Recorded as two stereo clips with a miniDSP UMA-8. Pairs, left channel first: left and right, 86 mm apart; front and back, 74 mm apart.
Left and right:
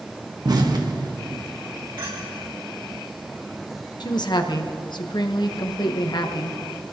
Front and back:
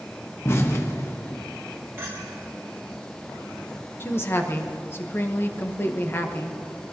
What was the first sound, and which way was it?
An explosion, 55° right.